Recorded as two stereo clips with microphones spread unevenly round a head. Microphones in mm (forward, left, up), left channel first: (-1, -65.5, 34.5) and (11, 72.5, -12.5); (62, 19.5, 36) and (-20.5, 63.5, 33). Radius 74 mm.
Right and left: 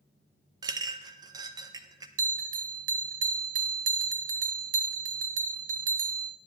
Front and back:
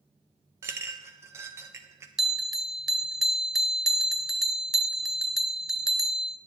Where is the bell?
65° left, 0.7 m.